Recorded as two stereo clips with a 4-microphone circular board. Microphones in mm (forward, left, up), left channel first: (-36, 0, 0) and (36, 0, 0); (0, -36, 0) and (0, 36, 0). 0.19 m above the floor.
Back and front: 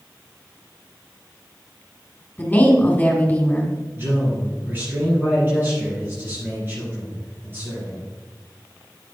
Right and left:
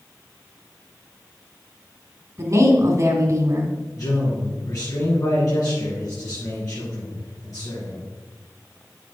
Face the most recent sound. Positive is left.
turn(degrees=-60)